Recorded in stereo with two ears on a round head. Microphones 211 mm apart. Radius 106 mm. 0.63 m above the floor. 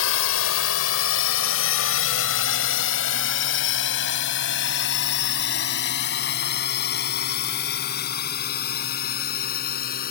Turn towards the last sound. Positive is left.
turn(degrees=40)  # may be behind; listen again after turning